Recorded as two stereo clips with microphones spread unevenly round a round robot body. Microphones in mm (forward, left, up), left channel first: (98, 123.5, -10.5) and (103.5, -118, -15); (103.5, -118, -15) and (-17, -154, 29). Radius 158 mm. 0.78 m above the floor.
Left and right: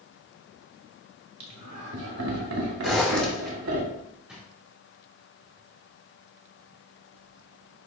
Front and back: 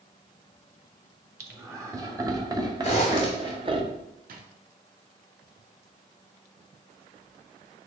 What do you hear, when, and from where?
1.4 s laughter: 85° right, 3 m; by 3.8 s 110° right, 1.8 m
2.8 s a zipper: straight ahead, 3 m
4.3 s a drawer: 175° right, 0.9 m